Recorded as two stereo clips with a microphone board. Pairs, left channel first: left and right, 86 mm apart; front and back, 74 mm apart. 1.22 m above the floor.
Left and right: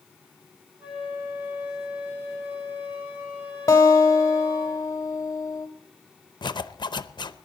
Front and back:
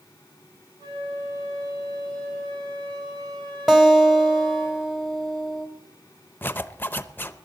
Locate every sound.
0.8 s a flute: 165° right, 10 m
3.7 s a guitar: 95° left, 1.2 m
6.4 s a zipper: 65° left, 0.6 m